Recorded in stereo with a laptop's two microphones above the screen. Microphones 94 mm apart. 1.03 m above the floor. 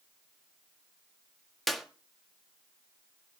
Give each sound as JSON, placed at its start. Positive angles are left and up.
{"t": 1.7, "sound": "a clap", "side_deg": 0, "distance_m": 1.7}